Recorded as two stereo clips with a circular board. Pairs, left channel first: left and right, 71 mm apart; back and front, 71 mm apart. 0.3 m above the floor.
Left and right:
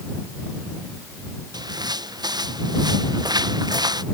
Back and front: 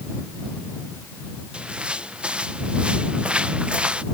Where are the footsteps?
75° right.